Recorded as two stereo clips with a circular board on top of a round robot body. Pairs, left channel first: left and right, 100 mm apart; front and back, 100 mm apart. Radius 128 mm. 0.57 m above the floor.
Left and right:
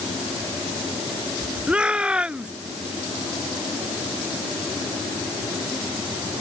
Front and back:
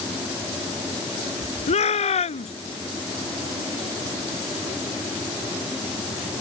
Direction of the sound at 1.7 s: 10° right.